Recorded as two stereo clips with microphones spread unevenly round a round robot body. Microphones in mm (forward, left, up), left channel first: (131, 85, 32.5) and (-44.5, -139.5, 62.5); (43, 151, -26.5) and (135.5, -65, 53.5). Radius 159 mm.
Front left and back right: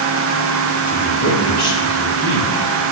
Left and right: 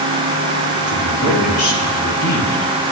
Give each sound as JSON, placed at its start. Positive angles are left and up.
{"t": 0.9, "sound": "a woman speaking", "azimuth_deg": 165, "distance_m": 4.0}